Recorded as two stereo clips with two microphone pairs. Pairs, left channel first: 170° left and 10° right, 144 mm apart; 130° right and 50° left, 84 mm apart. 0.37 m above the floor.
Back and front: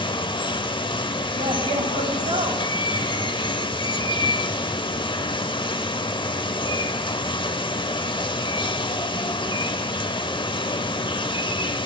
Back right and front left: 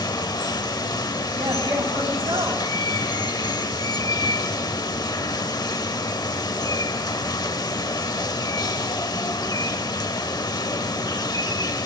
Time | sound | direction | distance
0.0 | running water | 145° right | 0.7 m
1.4 | a man speaking | 20° left | 2.5 m